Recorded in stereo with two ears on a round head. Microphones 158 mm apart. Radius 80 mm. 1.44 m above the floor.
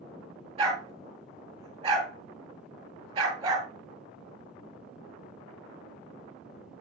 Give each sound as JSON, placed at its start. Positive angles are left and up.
{"t": 0.6, "sound": "a dog barking", "side_deg": -30, "distance_m": 2.5}